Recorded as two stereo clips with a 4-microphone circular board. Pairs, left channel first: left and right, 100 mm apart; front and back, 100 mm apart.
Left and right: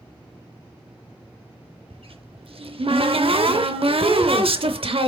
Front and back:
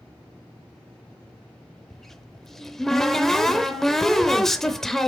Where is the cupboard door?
85° right, 0.6 m.